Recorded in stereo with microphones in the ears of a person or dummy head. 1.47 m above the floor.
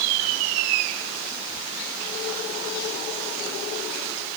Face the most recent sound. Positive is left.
No sound to turn to.